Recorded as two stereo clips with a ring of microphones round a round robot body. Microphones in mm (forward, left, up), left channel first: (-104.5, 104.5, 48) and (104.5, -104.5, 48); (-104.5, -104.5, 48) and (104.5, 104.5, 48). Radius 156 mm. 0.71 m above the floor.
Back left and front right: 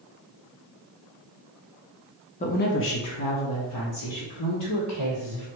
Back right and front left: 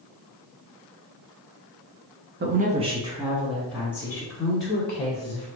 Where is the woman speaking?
80° left, 0.6 m; by 5.5 s 150° left, 2.0 m.